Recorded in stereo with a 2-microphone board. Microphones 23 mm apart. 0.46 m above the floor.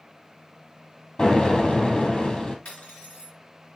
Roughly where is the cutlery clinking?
Left.